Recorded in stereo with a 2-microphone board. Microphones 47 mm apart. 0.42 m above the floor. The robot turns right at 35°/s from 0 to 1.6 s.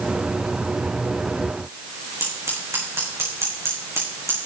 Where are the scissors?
70° right (ahead or behind), 5 m.